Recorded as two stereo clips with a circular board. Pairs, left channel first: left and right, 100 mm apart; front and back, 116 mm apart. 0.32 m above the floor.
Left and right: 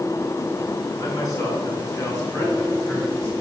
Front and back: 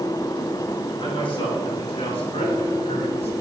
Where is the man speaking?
40° left, 5 m; by 3.3 s 20° left, 4.5 m.